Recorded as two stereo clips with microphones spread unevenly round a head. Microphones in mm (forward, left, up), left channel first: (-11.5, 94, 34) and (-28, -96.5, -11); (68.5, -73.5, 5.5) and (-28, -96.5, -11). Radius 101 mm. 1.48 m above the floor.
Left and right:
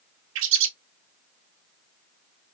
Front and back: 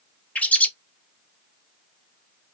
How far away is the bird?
About 0.6 m.